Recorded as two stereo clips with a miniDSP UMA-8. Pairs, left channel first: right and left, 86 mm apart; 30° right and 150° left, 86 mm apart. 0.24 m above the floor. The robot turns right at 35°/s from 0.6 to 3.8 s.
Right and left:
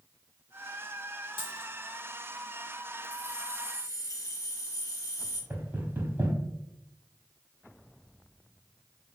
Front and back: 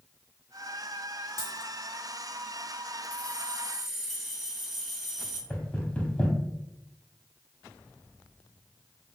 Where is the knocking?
40° left, 0.8 m.